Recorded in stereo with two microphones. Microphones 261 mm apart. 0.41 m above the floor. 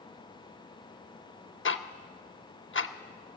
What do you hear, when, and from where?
1.6 s ticking: 50° left (ahead or behind), 0.5 m